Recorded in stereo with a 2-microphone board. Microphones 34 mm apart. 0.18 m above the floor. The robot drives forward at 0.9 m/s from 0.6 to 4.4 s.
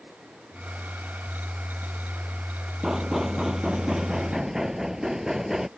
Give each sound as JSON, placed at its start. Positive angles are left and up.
{"t": 2.8, "sound": "knocking", "side_deg": -10}